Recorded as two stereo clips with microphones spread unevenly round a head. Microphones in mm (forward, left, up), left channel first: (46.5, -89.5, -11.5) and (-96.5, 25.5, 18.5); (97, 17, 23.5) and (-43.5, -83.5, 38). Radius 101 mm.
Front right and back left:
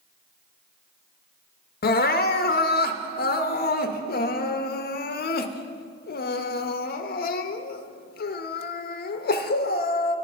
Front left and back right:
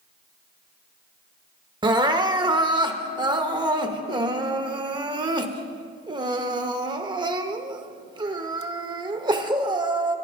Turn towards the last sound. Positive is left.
turn(degrees=-80)